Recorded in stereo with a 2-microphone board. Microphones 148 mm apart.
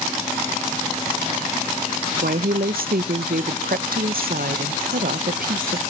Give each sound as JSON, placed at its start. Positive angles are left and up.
{"t": 2.2, "sound": "a woman speaking", "side_deg": -80, "distance_m": 0.6}